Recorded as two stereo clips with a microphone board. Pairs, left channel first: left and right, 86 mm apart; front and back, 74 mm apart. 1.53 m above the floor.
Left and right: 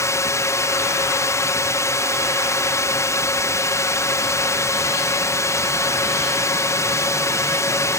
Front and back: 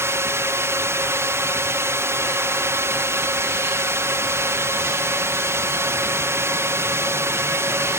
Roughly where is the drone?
Behind left.